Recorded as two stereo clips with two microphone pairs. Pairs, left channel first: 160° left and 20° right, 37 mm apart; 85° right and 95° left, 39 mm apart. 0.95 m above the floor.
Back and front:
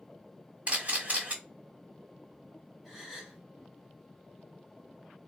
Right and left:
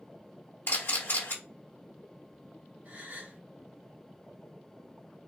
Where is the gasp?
60° left, 1.2 m.